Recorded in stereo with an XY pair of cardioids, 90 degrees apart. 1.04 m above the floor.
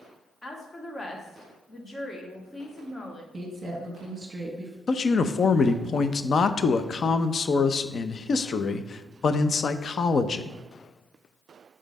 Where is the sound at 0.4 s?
30° left, 1.8 m.